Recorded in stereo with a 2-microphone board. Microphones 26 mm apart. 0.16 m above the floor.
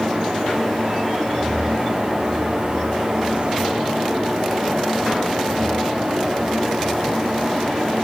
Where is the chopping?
I don't hear chopping.